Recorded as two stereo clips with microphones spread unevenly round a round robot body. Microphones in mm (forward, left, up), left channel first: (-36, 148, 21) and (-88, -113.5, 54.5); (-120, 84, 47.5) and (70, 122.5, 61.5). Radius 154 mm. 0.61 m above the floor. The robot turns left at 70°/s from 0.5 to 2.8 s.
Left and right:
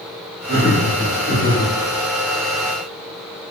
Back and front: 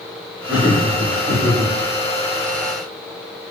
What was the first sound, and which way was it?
Laughter, 100° left.